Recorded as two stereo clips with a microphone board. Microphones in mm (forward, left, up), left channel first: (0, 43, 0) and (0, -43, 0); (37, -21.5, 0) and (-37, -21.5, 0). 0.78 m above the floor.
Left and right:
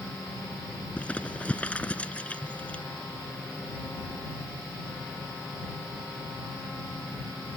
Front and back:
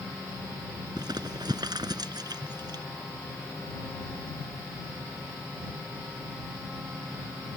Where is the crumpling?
165° left.